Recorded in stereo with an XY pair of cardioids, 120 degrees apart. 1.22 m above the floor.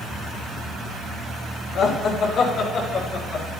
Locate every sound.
1.8 s laughter: 60° left, 1.7 m; by 3.5 s 65° left, 3 m